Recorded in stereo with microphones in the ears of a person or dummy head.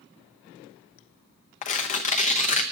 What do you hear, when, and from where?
1.6 s tearing paper: 35° left (ahead or behind), 0.8 m